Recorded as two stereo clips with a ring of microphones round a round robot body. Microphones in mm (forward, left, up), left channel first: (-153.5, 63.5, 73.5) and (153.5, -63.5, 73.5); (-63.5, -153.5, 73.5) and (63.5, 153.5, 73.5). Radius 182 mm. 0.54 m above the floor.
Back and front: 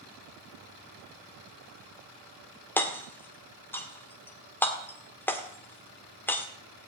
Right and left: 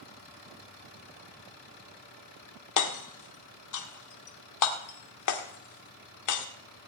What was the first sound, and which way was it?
Hammering, 120° right.